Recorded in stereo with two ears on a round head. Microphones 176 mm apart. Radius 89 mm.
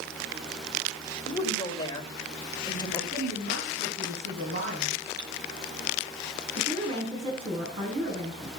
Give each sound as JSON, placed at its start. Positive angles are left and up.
{"t": 1.3, "sound": "a woman speaking", "side_deg": 20, "distance_m": 2.5}
{"t": 3.1, "sound": "a woman speaking", "side_deg": -50, "distance_m": 4.0}
{"t": 5.2, "sound": "cutlery clinking", "side_deg": -55, "distance_m": 4.5}
{"t": 6.5, "sound": "a woman speaking", "side_deg": -30, "distance_m": 5.5}